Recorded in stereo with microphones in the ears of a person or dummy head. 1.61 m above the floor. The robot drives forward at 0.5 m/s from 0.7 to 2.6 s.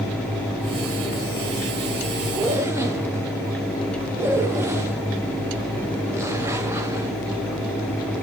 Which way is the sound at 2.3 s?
15° right (ahead or behind).